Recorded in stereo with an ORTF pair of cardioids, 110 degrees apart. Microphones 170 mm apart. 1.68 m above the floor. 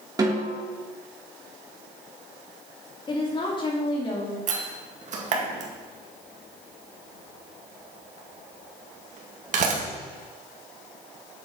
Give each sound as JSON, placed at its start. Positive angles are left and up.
{"t": 0.2, "sound": "a snare drum", "azimuth_deg": -25, "distance_m": 3.0}
{"t": 3.1, "sound": "a woman speaking", "azimuth_deg": 30, "distance_m": 3.0}
{"t": 4.5, "sound": "a door slam", "azimuth_deg": -50, "distance_m": 1.9}